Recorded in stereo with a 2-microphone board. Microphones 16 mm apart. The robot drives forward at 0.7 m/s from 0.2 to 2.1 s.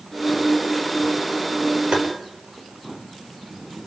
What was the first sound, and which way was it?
Tapping, 85° right.